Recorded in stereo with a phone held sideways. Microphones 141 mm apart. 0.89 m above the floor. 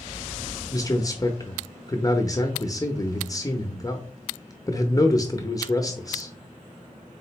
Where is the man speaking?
25° left (ahead or behind), 0.6 m.